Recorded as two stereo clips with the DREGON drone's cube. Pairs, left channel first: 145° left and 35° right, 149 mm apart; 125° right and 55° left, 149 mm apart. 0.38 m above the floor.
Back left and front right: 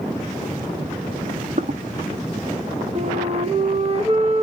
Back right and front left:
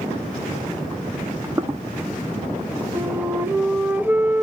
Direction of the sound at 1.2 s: 15° right.